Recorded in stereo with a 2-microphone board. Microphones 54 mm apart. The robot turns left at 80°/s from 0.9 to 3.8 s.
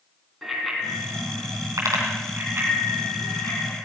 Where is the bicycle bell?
Centre (ahead or behind), 3.5 m; by 3.8 s 50° left (ahead or behind), 3.5 m.